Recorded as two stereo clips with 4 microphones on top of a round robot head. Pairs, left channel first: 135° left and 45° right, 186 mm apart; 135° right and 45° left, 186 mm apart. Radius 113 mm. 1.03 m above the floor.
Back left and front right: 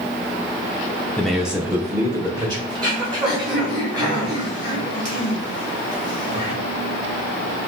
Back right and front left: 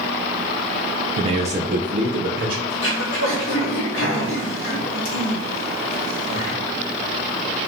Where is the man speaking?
60° left, 0.6 m; by 2.6 s 15° left, 1.1 m.